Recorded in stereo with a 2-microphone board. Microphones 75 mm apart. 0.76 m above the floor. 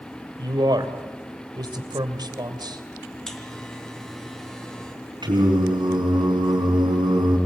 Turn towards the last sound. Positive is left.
turn(degrees=-85)